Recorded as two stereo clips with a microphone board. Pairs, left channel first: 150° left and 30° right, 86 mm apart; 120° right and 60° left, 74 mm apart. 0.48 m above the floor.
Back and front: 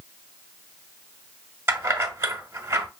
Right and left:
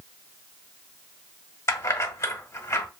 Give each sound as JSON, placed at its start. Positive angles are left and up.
{"t": 1.7, "sound": "keys jangling", "azimuth_deg": -80, "distance_m": 0.8}